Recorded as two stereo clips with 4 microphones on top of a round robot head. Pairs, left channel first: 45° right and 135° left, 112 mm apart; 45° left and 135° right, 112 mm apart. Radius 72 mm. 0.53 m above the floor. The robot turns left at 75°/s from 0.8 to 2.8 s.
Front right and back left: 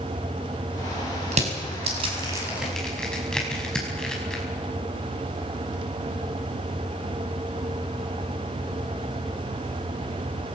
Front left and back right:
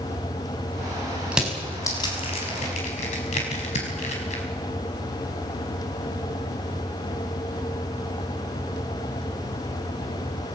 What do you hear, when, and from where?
1.3 s crushing: 150° left, 5 m; by 4.4 s 35° left, 5 m